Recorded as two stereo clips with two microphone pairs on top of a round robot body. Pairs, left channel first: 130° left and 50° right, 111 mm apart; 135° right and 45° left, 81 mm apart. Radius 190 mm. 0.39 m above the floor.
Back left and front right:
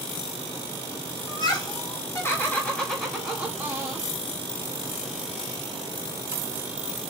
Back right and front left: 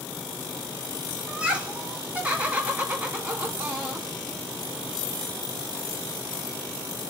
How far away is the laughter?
About 1.9 m.